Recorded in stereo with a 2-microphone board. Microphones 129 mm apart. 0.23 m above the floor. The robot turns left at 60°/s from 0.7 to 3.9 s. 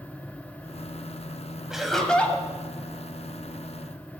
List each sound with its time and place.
1.7 s laughter: 5° right (ahead or behind), 1.0 m; by 2.5 s 15° left (ahead or behind), 1.0 m